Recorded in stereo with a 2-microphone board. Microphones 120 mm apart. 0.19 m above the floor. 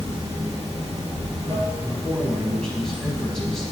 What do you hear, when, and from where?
0.0 s running water: 40° right (ahead or behind), 2.5 m
1.8 s a man speaking: 5° left (ahead or behind), 1.1 m